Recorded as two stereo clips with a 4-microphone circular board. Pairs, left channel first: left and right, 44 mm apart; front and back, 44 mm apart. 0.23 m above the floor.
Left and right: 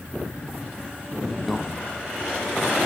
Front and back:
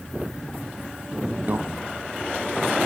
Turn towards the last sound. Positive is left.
turn(degrees=-175)